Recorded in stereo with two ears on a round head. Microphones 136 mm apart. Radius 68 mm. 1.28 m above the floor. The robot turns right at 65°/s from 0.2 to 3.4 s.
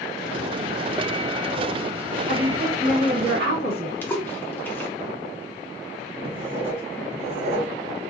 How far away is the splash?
About 0.5 m.